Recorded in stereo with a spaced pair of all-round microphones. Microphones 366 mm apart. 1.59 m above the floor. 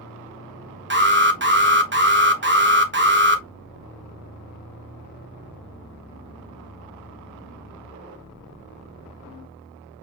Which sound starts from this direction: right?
An alarm, at 0.9 s.